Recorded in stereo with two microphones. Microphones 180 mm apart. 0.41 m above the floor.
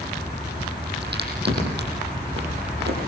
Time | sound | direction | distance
1.0 | a crack | 70° right (ahead or behind) | 8.5 m